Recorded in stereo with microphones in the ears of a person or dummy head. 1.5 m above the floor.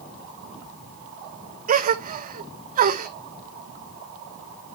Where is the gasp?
40° right (ahead or behind), 0.7 m.